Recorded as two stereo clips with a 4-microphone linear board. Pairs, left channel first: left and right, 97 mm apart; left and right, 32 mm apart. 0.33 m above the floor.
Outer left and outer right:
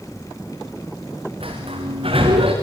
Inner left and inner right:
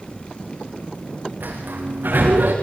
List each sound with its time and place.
1.4 s a sliding door: 75° right (ahead or behind), 7 m